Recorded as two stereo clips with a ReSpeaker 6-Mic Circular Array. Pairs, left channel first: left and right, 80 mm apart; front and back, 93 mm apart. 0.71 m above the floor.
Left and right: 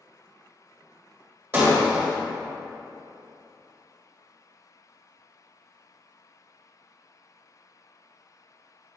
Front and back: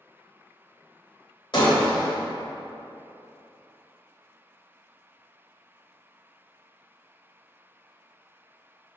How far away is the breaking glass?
About 1.8 m.